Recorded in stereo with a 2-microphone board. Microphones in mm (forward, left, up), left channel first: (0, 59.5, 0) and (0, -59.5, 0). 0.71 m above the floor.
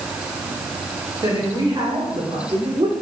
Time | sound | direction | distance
1.2 | a woman speaking | 40° right (ahead or behind) | 3 m